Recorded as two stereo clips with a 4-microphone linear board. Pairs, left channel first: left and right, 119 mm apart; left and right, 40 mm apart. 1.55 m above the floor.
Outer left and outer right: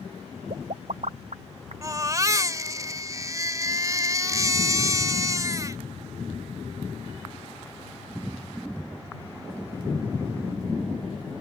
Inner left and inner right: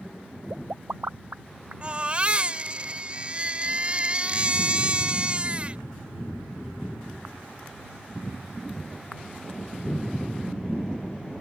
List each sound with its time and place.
0.5 s a pop: 75° right (ahead or behind)
1.8 s a baby crying: 30° right (ahead or behind)